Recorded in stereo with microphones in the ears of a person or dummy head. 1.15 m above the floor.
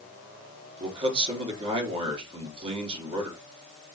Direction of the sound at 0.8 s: 35° right (ahead or behind).